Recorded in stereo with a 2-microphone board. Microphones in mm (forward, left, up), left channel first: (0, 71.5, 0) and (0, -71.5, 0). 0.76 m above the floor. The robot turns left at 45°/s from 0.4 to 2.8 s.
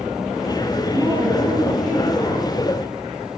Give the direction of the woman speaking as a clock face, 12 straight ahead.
5 o'clock.